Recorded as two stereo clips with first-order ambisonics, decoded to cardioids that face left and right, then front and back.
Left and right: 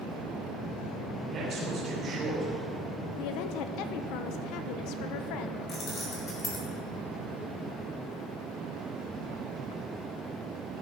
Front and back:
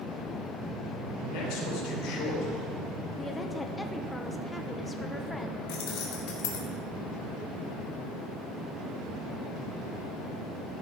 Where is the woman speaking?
80° left, 1.0 m.